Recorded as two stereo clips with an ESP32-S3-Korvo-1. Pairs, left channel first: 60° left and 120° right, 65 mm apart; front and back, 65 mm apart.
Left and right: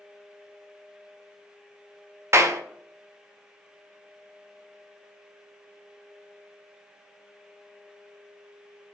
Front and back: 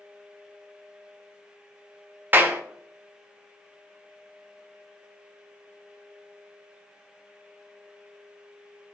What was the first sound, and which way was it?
A clap, 135° right.